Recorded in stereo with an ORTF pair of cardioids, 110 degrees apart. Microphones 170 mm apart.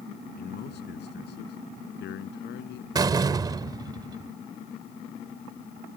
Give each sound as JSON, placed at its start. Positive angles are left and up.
{"t": 0.4, "sound": "a man speaking", "azimuth_deg": 65}
{"t": 3.0, "sound": "a door slam", "azimuth_deg": -20}